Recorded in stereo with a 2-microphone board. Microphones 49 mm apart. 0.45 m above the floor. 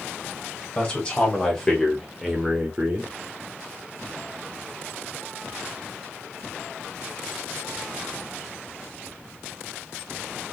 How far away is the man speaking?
About 2 m.